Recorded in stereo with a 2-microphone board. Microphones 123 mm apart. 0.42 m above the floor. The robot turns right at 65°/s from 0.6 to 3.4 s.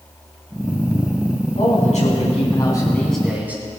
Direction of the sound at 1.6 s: 75° left.